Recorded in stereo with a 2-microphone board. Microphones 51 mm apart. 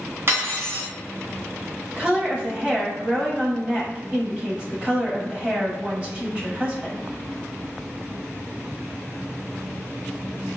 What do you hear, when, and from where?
0.3 s cutlery clinking: 50° right (ahead or behind), 1.3 m
2.0 s a woman speaking: 20° right (ahead or behind), 1.1 m